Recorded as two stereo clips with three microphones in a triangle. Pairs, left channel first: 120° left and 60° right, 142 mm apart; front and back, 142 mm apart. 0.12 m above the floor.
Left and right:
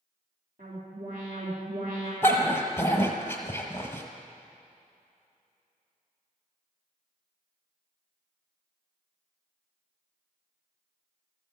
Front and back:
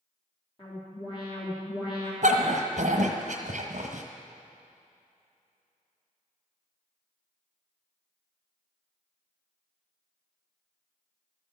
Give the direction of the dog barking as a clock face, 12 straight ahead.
6 o'clock.